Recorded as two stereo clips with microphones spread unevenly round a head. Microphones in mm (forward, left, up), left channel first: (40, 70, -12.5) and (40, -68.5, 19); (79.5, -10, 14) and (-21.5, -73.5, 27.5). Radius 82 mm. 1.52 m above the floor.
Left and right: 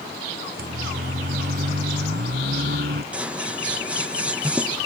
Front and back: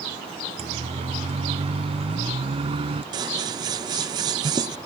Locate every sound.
0.6 s a siren: 115° right; by 3.0 s 110° right
3.1 s scissors: 150° right